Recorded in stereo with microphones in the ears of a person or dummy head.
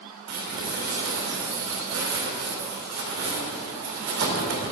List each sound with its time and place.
0.3 s crumpling: 65° right (ahead or behind), 2.5 m